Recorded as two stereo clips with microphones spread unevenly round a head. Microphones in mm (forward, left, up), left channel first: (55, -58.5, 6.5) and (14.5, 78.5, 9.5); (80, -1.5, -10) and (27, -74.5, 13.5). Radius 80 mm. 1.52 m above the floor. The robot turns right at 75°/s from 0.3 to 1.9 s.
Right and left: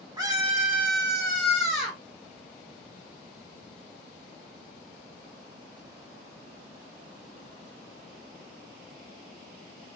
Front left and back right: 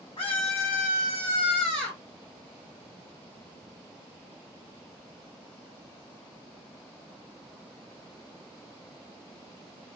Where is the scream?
45° left, 1.8 m; by 2.0 s 165° left, 1.8 m.